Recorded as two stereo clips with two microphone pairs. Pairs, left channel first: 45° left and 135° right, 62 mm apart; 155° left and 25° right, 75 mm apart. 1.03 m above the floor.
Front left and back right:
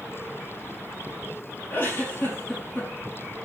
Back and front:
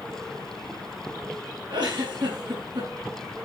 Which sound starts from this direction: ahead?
A giggle, at 1.7 s.